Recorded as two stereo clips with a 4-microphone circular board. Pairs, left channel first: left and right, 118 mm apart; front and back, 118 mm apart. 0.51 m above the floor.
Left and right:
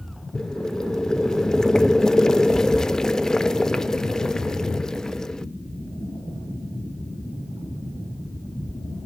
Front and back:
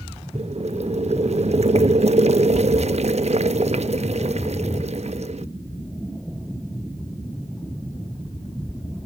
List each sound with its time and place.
0.3 s boiling: 175° left, 0.5 m